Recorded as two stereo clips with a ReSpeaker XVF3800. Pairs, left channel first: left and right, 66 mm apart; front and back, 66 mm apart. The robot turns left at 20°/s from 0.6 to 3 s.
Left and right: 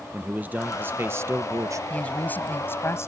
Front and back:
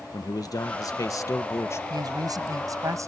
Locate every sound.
0.1 s a man speaking: 25° right; by 1.8 s 50° right
1.9 s a woman speaking: 160° left; by 3.1 s 140° left